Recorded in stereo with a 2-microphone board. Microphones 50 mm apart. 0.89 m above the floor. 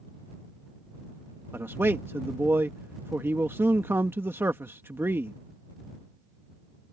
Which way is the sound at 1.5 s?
50° right (ahead or behind).